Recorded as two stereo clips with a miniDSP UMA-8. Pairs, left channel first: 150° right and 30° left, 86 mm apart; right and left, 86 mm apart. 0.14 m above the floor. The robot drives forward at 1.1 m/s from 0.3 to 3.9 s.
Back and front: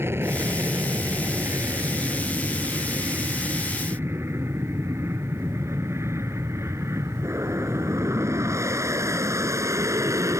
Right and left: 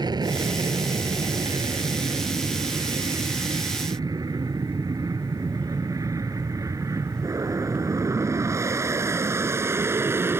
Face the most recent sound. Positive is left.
turn(degrees=45)